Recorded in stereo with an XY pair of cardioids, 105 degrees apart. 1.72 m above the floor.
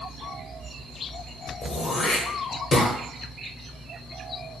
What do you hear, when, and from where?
1.6 s throat clearing: 50° left, 0.8 m